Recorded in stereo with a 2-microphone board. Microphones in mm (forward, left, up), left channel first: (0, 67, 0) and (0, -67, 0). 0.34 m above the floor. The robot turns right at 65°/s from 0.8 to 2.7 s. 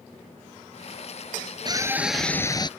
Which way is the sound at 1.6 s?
35° right.